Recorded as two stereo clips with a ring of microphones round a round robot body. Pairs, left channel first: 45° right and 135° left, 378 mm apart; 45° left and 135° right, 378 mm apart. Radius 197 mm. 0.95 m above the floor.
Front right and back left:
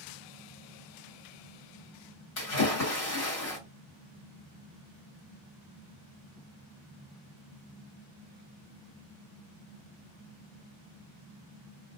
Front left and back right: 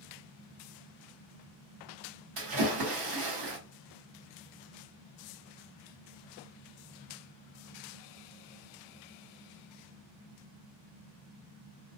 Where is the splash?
100° right, 1.3 m.